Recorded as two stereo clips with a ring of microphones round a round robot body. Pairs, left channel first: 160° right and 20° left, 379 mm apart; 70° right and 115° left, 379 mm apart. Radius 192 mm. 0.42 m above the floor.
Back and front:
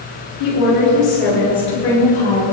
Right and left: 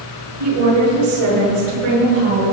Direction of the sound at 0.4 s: 165° left.